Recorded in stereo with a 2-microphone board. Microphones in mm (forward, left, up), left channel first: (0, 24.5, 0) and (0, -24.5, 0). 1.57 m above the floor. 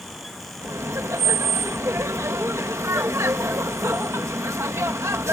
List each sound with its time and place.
0.6 s laughter: 70° right (ahead or behind)